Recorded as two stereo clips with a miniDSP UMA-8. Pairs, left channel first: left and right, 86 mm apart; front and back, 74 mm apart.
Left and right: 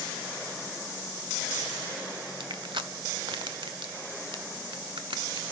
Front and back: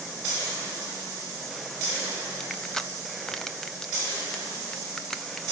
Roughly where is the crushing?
Right.